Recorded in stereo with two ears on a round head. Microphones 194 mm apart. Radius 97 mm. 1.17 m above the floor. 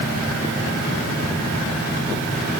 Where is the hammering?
I don't hear hammering.